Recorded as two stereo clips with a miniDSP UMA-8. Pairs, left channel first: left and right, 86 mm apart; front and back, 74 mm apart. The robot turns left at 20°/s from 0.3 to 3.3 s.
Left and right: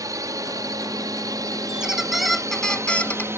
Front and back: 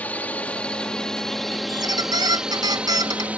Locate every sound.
0.0 s a drone: 65° right; by 3.4 s 125° right
1.7 s a squeak: 170° right; by 3.3 s 160° left